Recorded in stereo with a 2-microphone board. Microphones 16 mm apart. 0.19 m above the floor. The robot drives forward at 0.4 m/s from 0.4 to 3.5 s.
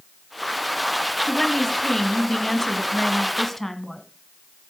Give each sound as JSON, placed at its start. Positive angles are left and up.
{"t": 1.3, "sound": "a woman speaking", "side_deg": 20, "distance_m": 1.3}